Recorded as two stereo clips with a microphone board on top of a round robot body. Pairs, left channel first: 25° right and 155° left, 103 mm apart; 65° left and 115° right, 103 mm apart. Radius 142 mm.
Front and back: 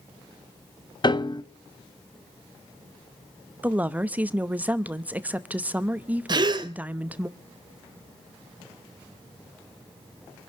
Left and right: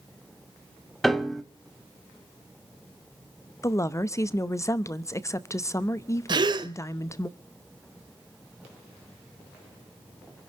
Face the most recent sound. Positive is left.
turn(degrees=-155)